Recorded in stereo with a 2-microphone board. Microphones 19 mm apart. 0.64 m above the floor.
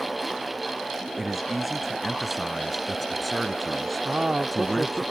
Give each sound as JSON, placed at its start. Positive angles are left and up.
{"t": 1.2, "sound": "a man speaking", "side_deg": -10}
{"t": 4.0, "sound": "a man speaking", "side_deg": -50}